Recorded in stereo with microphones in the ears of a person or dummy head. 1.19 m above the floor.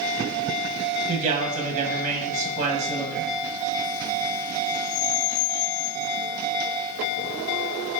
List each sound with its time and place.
1.1 s a man speaking: 45° right (ahead or behind), 0.7 m